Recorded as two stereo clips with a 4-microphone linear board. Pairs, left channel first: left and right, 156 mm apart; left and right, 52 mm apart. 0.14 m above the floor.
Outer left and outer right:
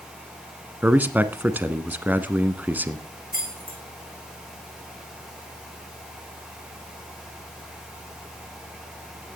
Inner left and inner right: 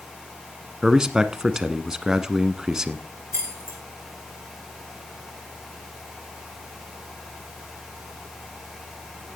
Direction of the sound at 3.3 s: 65° right (ahead or behind).